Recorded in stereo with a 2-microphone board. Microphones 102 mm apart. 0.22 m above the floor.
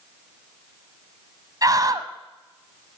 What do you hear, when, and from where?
1.6 s a scream: 40° right (ahead or behind), 1.1 m